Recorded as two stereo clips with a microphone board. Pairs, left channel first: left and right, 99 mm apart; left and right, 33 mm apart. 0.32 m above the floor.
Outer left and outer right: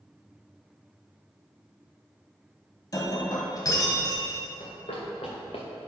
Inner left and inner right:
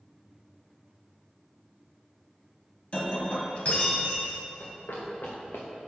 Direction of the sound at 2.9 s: 40° left (ahead or behind).